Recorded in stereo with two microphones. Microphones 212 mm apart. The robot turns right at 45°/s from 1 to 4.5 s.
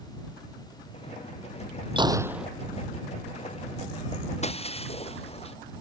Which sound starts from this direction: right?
A gunshot, at 2.0 s.